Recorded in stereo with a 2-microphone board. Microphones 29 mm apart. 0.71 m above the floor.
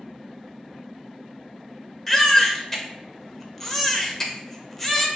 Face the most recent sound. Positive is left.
turn(degrees=10)  # may be behind; listen again after turning